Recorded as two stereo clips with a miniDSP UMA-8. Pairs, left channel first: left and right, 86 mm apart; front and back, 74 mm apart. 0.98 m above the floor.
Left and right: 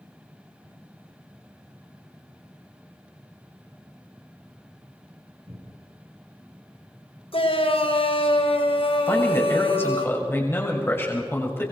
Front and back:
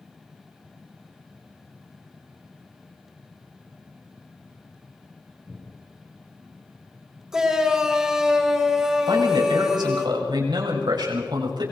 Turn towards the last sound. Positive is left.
turn(degrees=155)